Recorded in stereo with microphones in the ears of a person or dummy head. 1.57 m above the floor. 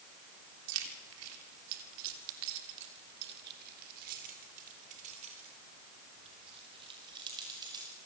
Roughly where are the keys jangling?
Right.